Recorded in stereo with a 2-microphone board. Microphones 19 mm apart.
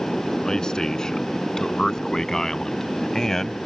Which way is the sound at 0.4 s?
35° left (ahead or behind).